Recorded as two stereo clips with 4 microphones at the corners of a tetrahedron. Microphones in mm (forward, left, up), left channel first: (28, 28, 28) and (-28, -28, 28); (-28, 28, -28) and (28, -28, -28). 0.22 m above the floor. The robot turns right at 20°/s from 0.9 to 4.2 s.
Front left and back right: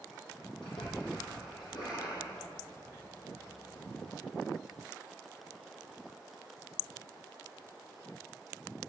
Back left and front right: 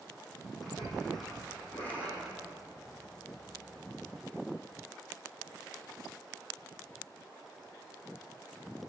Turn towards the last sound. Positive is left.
turn(degrees=115)